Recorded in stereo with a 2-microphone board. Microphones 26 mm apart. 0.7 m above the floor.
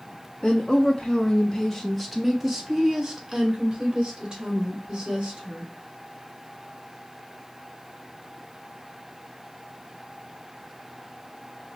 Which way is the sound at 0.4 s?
45° left (ahead or behind).